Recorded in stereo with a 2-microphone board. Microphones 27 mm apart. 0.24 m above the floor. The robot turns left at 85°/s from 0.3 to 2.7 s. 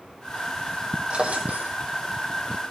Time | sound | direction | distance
1.1 | a drawer | 45° right | 2.5 m